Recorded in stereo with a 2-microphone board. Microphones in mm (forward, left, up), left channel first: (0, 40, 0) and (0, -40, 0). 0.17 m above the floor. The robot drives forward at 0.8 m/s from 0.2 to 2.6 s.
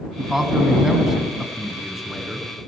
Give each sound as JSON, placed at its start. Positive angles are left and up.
{"t": 0.2, "sound": "a man speaking", "side_deg": -5, "distance_m": 1.2}